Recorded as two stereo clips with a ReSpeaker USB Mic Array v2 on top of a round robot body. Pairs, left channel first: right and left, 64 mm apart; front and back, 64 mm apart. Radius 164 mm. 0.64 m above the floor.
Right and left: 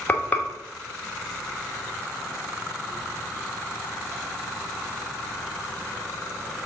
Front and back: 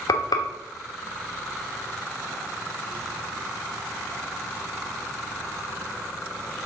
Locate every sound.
0.1 s frying: 25° right, 0.9 m